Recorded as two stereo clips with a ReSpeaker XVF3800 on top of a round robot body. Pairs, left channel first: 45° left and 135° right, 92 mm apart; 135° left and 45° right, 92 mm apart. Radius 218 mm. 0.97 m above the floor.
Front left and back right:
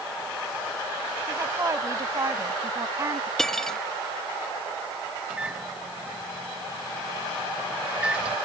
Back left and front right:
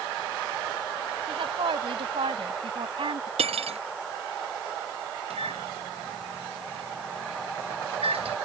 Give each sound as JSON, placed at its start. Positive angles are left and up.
{"t": 1.3, "sound": "a woman speaking", "azimuth_deg": -75}
{"t": 3.4, "sound": "cutlery clinking", "azimuth_deg": -40}
{"t": 5.3, "sound": "a microwave", "azimuth_deg": -55}